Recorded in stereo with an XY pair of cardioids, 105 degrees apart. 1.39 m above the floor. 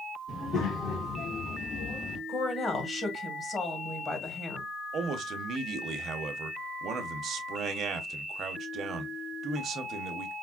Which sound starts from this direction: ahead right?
A man speaking, at 4.9 s.